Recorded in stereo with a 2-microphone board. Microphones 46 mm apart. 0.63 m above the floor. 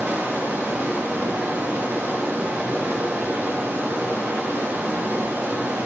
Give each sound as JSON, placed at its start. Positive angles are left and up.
{"t": 0.0, "sound": "running water", "side_deg": -75, "distance_m": 4.0}